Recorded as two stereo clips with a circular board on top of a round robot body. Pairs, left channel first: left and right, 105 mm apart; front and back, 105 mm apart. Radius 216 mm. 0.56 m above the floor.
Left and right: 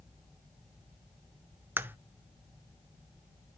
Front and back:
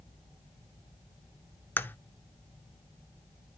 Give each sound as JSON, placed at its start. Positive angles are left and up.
{"t": 1.8, "sound": "a crack", "azimuth_deg": -45, "distance_m": 0.9}